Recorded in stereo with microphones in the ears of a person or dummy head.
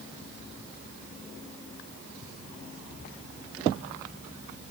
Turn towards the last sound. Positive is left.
No sound to turn to.